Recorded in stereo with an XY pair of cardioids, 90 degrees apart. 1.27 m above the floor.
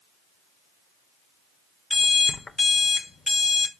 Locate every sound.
1.9 s an alarm clock: 45° left, 1.1 m